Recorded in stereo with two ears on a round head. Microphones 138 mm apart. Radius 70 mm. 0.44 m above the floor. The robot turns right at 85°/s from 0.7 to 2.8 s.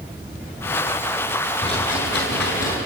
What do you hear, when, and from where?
1.6 s a rattle: 30° left, 8 m; by 2.8 s 125° left, 8 m